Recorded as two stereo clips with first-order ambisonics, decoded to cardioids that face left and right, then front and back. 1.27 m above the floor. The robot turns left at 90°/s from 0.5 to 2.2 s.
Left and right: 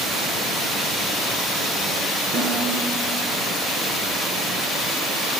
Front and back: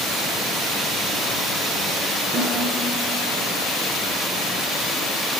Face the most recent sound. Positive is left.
turn(degrees=-145)